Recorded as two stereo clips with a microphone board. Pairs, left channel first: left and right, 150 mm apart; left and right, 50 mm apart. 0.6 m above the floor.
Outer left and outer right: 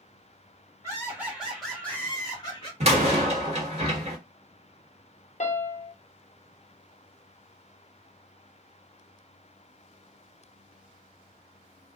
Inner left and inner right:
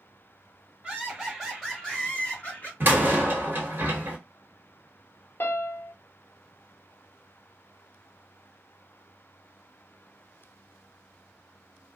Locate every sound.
0.8 s laughter: 20° right (ahead or behind), 1.3 m; by 2.7 s 30° left (ahead or behind), 1.4 m
2.8 s a door slam: 45° right (ahead or behind), 1.1 m
5.4 s a piano: 50° left (ahead or behind), 0.7 m